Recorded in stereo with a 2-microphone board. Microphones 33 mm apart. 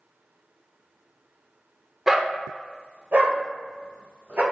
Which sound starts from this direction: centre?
A dog barking, at 2.1 s.